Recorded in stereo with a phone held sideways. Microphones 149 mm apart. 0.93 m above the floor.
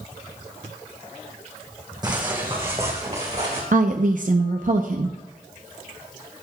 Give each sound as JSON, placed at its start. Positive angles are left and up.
{"t": 2.0, "sound": "footsteps", "side_deg": -25, "distance_m": 2.5}
{"t": 3.7, "sound": "a woman speaking", "side_deg": -60, "distance_m": 0.7}